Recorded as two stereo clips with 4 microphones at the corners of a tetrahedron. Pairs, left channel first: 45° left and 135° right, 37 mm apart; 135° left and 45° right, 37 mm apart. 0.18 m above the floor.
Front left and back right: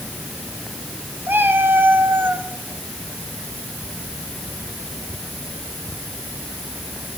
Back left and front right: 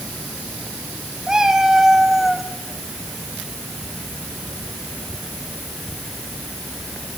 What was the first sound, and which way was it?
A cat meowing, 120° right.